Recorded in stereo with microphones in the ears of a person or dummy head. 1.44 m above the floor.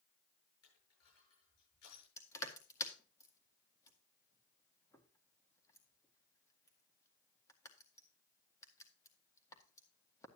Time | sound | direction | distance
0.6 | crushing | 85° left | 8 m
2.2 | crushing | 15° left (ahead or behind) | 1.8 m